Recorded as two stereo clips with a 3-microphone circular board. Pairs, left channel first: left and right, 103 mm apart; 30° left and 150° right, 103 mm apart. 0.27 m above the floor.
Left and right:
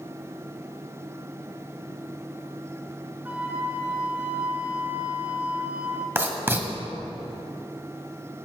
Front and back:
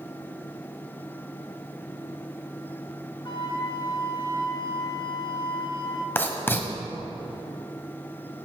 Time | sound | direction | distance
3.2 | a flute | 15° right | 1.4 m
6.2 | writing | 30° right | 1.5 m